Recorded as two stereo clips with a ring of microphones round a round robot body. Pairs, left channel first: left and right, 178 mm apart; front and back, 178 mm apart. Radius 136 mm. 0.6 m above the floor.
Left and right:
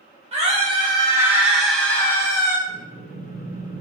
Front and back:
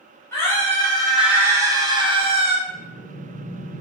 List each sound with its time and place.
0.3 s a scream: 65° right, 1.2 m; by 2.6 s 145° left, 1.3 m
2.7 s breathing: 10° right, 1.7 m